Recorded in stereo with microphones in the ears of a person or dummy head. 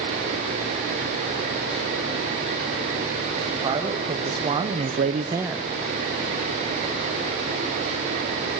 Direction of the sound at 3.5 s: 25° right (ahead or behind).